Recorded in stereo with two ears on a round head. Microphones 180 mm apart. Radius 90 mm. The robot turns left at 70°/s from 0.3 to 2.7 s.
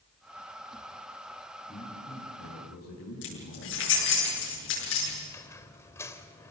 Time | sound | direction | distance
1.7 | a man speaking | 165° left | 6 m
3.2 | keys jangling | 65° left (ahead or behind) | 8.5 m
5.3 | a squeak | 15° left (ahead or behind) | 1.5 m